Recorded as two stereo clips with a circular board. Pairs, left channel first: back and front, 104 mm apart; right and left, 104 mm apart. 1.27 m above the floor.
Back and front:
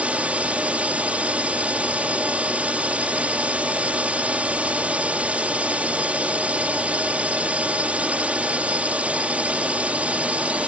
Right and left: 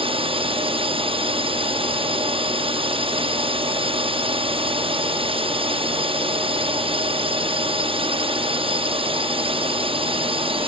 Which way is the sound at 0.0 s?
75° left.